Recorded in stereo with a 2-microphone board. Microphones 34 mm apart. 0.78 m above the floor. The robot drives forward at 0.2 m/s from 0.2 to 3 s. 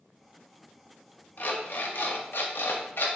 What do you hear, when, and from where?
1.4 s an alarm clock: 60° left (ahead or behind), 0.5 m; by 3.1 s 80° left, 0.5 m